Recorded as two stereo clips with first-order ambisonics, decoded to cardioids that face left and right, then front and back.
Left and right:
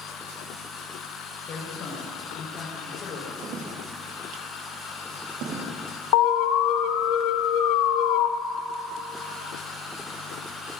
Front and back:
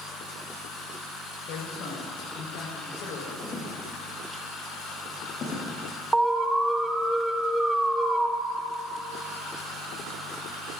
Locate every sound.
1.5 s a man speaking: 40° left, 4.5 m
3.4 s footsteps: 65° right, 5.5 m; by 5.7 s 55° right, 5.5 m
6.1 s an alarm: 100° left, 0.9 m